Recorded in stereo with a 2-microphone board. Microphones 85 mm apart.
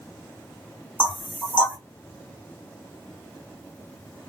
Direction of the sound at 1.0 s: 15° left (ahead or behind).